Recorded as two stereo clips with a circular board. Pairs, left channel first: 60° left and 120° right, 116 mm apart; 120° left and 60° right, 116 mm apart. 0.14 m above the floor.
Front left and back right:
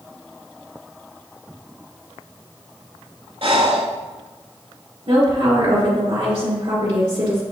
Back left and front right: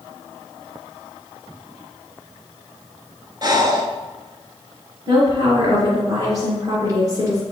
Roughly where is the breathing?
Right.